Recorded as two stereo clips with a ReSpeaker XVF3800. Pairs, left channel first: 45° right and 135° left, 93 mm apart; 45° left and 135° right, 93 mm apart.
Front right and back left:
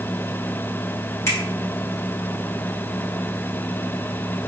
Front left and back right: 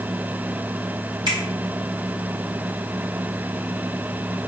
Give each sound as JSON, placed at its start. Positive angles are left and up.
{"t": 1.3, "sound": "a finger snap", "azimuth_deg": -105, "distance_m": 2.5}